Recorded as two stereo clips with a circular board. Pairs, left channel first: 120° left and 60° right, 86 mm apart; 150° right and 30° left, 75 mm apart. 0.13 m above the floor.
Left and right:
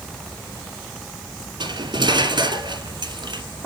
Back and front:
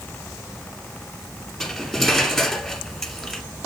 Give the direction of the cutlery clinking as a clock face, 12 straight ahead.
2 o'clock.